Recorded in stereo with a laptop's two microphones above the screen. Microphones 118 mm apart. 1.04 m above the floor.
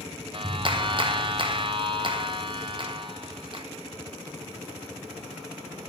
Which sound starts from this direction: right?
A clap, at 0.3 s.